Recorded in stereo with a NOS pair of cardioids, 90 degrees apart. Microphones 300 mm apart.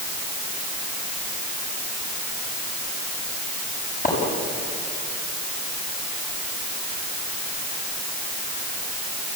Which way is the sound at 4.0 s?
25° left.